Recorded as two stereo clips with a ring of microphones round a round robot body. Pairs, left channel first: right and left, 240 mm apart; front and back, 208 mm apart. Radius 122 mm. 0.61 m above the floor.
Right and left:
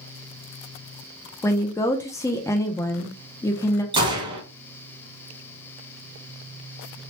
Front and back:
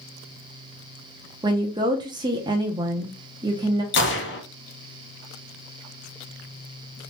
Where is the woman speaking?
150° right, 0.6 m.